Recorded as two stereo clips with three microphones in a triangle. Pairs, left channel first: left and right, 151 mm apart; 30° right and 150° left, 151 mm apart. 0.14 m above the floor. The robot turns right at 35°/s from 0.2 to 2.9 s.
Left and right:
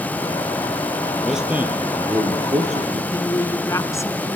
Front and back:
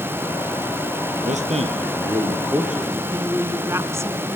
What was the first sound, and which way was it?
A man speaking, straight behind.